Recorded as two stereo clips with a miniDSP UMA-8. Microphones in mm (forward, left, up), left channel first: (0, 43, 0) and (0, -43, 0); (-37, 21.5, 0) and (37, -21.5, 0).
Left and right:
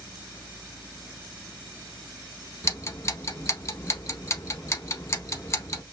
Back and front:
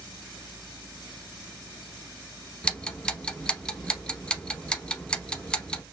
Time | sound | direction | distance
2.6 | ticking | 80° left | 0.7 m